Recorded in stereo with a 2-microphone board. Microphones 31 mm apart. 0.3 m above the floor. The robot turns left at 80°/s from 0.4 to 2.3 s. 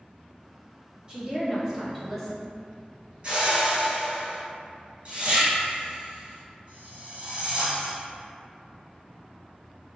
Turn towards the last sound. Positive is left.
turn(degrees=-35)  # may be behind; listen again after turning